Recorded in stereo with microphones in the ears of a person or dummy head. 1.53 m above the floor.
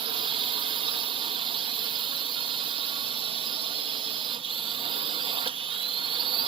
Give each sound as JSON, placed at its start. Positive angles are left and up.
{"t": 0.0, "sound": "a drone", "side_deg": -25}